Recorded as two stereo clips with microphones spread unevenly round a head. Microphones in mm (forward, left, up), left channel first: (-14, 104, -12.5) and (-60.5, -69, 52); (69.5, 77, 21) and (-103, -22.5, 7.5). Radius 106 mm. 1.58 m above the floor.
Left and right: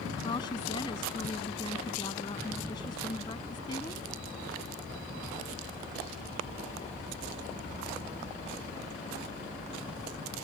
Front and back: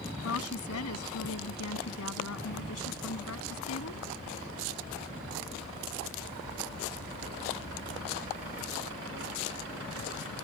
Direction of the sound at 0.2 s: 5° left.